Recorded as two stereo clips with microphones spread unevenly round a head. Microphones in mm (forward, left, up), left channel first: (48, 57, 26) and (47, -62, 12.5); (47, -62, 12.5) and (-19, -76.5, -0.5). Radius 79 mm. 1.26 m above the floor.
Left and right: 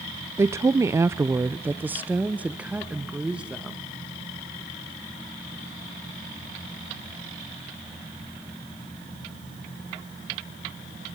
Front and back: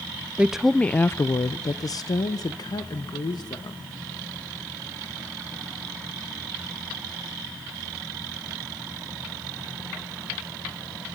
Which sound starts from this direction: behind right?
A woman speaking, at 0.4 s.